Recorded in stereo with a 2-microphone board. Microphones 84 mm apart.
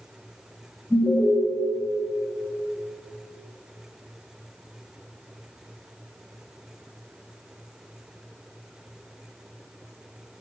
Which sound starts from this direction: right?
An alarm, at 0.9 s.